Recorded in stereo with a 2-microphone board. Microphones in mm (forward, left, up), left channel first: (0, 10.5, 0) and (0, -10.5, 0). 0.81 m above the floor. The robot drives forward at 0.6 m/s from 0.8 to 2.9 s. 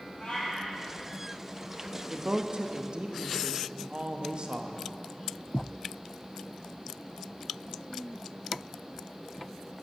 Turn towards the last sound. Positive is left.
turn(degrees=-50)  # may be behind; listen again after turning